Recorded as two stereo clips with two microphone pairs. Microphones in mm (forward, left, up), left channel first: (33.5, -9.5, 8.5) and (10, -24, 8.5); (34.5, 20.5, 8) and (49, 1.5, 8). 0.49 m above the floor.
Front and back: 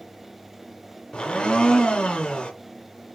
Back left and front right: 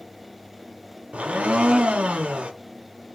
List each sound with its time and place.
1.1 s a blender: 25° right, 0.5 m